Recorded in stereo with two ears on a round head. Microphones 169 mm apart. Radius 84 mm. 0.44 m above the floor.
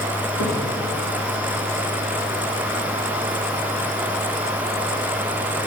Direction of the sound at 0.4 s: 70° left (ahead or behind).